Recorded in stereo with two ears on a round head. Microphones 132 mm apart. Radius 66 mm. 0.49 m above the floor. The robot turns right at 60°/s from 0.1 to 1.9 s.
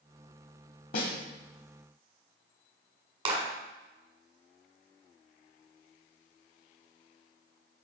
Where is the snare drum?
60° left (ahead or behind), 1.2 m; by 1.1 s 75° left (ahead or behind), 1.2 m.